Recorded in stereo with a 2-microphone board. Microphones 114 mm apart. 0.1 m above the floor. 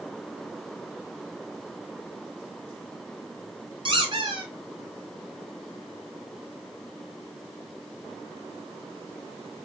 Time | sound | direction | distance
3.9 | a squeak | 50° right (ahead or behind) | 1.6 m